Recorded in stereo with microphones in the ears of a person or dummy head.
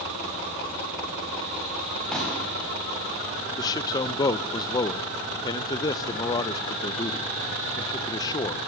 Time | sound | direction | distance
2.1 | a pop | 5° left (ahead or behind) | 8.5 m
3.6 | a man speaking | 20° left (ahead or behind) | 0.7 m